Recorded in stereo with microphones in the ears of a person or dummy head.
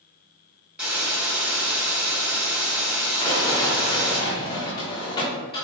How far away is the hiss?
About 1.9 m.